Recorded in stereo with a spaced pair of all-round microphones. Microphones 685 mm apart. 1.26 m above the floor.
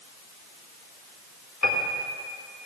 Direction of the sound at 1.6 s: 25° left (ahead or behind).